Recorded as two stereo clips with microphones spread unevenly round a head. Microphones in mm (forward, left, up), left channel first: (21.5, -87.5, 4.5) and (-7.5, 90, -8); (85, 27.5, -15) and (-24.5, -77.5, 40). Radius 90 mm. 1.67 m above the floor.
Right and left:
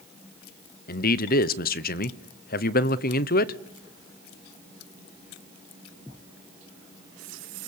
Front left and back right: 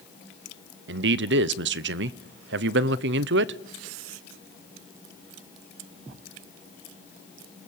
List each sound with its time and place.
0.9 s a man speaking: 125° right, 0.9 m